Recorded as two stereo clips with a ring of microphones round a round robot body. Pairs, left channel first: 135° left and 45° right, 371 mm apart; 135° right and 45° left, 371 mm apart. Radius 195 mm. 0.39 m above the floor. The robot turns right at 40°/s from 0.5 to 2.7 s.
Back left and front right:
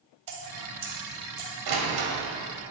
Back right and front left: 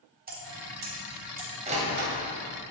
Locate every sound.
0.3 s dripping: 20° right, 3 m; by 1.5 s 20° left, 3 m
1.7 s a door slam: 30° right, 1.9 m; by 2.1 s 10° right, 1.9 m